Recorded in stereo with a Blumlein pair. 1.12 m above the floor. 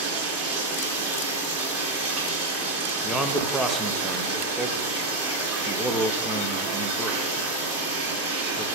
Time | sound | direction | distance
0.0 | running water | 30° right | 2 m
3.0 | a man speaking | 5° right | 0.9 m